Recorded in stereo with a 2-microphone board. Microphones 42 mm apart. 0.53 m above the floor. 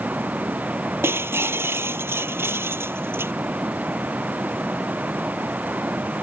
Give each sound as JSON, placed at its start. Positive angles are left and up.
{"t": 0.0, "sound": "running water", "side_deg": -35}
{"t": 1.0, "sound": "breaking glass", "side_deg": -65}